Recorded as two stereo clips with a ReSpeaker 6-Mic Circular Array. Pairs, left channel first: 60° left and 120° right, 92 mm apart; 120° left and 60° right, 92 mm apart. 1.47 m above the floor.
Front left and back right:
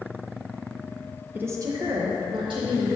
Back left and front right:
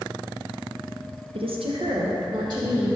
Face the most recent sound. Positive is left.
turn(degrees=-95)